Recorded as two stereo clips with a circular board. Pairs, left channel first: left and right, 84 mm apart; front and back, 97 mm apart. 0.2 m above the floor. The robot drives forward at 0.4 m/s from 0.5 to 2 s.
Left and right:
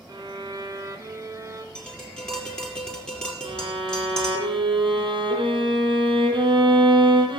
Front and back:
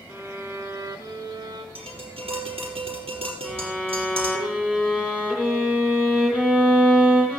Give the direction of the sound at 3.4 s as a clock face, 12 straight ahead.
3 o'clock.